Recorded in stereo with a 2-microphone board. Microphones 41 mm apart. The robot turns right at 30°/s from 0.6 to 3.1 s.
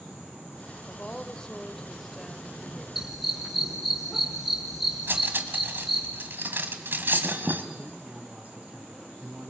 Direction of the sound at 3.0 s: 10° right (ahead or behind).